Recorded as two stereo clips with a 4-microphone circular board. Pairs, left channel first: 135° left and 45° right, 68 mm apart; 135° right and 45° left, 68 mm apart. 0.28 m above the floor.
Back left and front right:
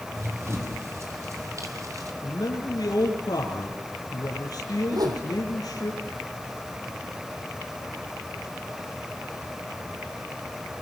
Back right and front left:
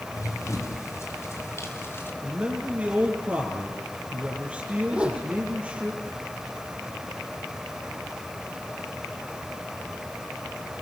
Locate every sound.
0.1 s running footsteps: 95° right, 5.5 m; by 2.1 s 80° right, 4.5 m
2.2 s a man speaking: 110° left, 4.5 m
4.9 s a whoosh: 30° right, 4 m